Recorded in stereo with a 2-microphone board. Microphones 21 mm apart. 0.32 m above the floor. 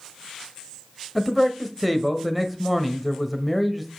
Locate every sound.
1.1 s a man speaking: 5° right (ahead or behind), 1.1 m